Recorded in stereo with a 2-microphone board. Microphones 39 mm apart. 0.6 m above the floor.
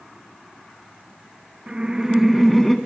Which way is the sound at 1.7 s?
20° right (ahead or behind).